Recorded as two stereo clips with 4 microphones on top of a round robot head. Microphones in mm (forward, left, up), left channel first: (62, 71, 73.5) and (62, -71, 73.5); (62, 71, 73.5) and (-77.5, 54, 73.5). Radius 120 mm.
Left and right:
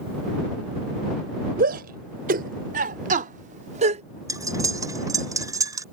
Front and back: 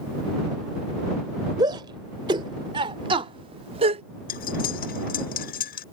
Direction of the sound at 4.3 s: 25° right.